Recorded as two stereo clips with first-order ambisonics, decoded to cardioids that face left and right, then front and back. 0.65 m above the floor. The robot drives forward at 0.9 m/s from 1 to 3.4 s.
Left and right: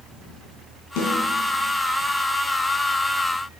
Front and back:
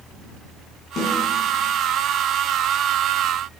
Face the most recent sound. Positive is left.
turn(degrees=110)